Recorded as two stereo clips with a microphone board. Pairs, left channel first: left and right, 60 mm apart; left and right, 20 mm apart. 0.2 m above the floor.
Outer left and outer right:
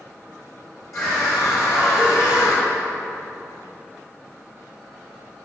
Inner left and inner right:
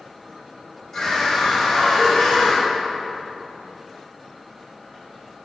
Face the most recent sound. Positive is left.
turn(degrees=60)  # may be behind; listen again after turning